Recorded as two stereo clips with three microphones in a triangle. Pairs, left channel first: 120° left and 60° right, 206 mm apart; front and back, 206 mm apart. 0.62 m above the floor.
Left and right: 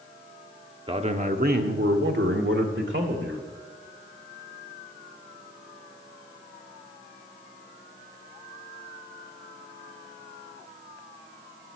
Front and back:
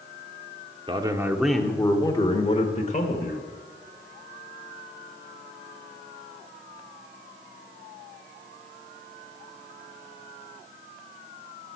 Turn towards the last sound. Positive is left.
turn(degrees=-45)